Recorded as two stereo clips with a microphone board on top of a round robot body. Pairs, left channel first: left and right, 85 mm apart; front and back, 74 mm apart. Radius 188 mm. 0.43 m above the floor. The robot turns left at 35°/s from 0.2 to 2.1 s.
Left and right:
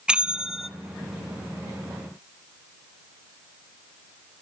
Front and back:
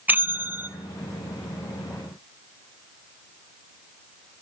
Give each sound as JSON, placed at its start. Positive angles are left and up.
{"t": 0.1, "sound": "a bell", "azimuth_deg": -155, "distance_m": 0.9}